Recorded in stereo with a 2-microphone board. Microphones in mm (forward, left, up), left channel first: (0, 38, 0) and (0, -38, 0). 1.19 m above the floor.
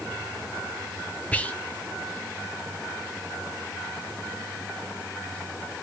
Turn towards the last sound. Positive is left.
turn(degrees=20)  # may be behind; listen again after turning